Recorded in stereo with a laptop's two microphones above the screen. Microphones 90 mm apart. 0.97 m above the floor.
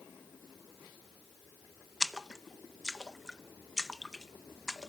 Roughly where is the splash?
Centre.